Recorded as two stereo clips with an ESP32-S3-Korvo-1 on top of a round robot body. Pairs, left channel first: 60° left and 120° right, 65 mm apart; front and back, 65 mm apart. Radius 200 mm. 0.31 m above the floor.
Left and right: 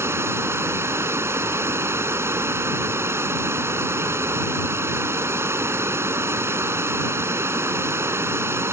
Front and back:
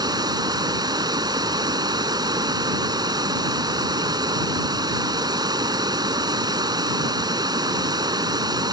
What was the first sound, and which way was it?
Running water, 170° right.